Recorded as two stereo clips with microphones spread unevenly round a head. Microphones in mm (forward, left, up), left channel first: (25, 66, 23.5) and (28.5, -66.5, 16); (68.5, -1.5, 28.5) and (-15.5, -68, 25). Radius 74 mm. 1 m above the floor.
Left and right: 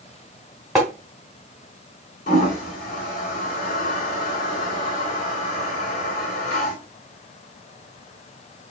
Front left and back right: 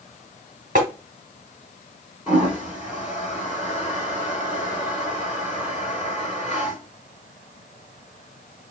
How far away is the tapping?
About 1.2 m.